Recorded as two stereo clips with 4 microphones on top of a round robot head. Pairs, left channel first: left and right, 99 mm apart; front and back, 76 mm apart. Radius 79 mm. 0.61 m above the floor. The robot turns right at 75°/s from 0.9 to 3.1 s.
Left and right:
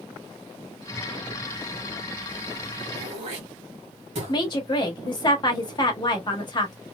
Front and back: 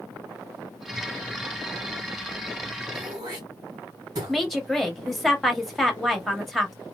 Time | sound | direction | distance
2.9 | throat clearing | 135° right | 1.4 m
4.3 | a woman speaking | 85° left | 1.3 m